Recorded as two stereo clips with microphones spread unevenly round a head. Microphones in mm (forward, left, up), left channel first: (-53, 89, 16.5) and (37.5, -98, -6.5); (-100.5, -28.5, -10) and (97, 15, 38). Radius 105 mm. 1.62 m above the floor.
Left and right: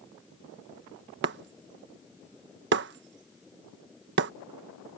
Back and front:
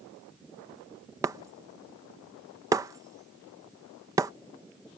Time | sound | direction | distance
1.2 | breaking glass | 45° right | ?